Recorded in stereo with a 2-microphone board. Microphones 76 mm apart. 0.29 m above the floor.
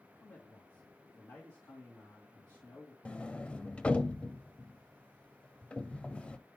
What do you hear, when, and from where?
0.2 s a man speaking: 50° left (ahead or behind), 2.5 m
3.0 s a sliding door: 15° left (ahead or behind), 0.5 m